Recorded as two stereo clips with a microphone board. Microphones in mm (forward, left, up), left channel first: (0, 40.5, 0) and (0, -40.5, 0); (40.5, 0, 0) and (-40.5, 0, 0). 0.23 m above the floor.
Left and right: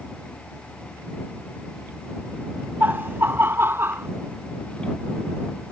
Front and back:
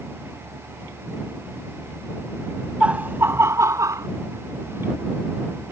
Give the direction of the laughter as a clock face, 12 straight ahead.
4 o'clock.